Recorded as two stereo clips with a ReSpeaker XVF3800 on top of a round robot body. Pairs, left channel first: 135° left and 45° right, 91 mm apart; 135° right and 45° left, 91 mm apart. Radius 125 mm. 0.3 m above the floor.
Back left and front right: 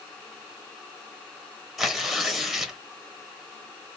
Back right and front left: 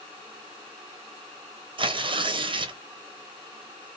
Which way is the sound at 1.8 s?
45° left.